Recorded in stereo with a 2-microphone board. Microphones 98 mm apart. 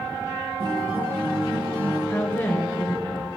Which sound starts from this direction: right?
A guitar, at 0.6 s.